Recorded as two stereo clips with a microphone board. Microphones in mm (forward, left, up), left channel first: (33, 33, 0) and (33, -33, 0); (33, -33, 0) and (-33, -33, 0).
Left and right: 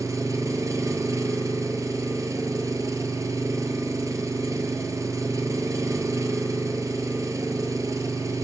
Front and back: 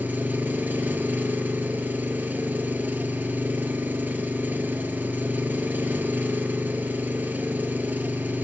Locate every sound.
0.0 s an engine running: 120° right, 0.8 m